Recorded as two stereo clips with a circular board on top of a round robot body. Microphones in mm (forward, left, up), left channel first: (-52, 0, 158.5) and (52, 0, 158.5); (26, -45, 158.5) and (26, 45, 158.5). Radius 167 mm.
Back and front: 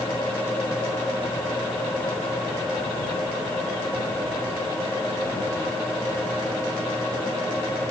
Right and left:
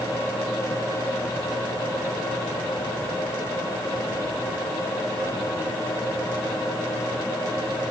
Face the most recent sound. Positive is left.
No sound to turn to.